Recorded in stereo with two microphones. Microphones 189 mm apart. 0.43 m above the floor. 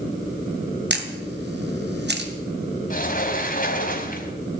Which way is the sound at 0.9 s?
65° right (ahead or behind).